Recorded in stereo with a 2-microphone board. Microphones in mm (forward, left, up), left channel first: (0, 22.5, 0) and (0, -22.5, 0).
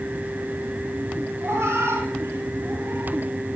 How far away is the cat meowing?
About 5.5 m.